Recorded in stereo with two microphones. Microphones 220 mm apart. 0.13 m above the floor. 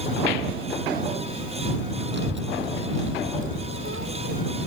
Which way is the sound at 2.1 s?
55° right (ahead or behind).